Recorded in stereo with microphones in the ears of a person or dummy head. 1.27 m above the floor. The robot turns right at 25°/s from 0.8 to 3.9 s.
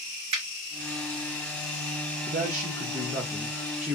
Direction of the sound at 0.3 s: 45° right (ahead or behind).